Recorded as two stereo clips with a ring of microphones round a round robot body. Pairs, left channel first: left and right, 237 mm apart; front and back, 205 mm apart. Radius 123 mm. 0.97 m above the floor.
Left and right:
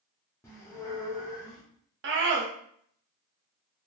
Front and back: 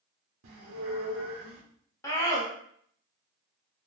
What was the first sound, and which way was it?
A squeak, 165° left.